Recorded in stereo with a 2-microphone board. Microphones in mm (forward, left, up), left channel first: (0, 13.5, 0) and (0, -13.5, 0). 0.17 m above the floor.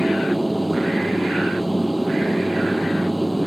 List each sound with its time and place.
0.0 s an aircraft: centre (ahead or behind)